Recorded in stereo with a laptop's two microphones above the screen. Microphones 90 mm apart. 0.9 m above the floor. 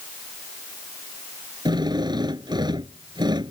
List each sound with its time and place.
1.6 s a drill: 55° right (ahead or behind)